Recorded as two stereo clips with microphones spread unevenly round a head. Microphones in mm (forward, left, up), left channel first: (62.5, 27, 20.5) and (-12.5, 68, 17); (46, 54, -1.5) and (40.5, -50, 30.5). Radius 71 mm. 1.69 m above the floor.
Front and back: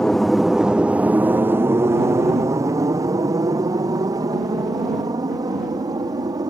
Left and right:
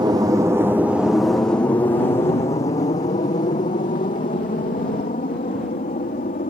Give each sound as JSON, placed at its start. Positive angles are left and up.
{"t": 0.0, "sound": "an aircraft", "azimuth_deg": -105}